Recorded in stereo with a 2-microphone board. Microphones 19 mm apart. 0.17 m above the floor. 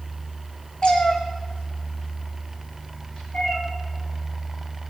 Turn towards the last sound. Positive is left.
turn(degrees=50)  # may be behind; listen again after turning